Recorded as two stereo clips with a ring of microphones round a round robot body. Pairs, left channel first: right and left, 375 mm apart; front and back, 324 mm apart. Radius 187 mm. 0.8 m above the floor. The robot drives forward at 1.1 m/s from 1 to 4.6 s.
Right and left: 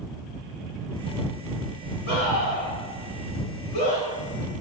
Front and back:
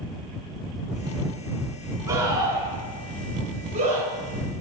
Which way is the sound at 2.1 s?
95° right.